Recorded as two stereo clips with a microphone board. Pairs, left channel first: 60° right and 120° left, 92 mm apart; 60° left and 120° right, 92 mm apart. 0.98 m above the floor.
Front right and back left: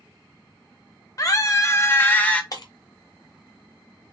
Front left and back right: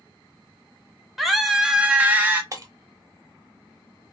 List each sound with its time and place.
1.2 s a scream: 30° right, 1.0 m; by 2.4 s 110° right, 0.8 m
2.5 s breaking glass: 85° right, 0.9 m